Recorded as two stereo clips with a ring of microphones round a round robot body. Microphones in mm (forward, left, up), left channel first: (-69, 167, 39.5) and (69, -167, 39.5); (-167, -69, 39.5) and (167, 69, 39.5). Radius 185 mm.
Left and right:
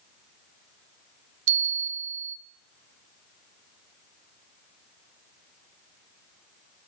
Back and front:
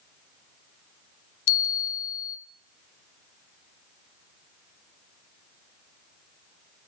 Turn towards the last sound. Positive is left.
turn(degrees=-115)